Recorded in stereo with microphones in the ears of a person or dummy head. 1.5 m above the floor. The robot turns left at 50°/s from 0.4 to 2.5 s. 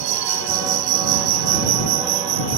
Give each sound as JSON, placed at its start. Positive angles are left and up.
{"t": 0.0, "sound": "an insect", "azimuth_deg": -50}